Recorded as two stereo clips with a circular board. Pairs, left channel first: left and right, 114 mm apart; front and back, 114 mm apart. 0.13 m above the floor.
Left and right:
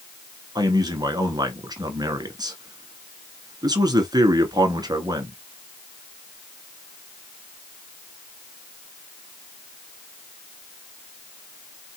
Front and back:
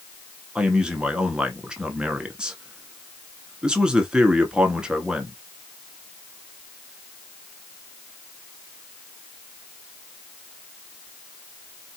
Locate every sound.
0.6 s a man speaking: 100° right, 1.3 m